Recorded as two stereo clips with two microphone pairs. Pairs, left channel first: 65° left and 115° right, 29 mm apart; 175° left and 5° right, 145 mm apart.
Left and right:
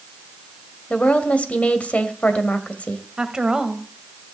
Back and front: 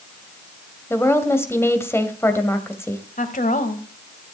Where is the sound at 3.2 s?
Straight behind, 1.9 m.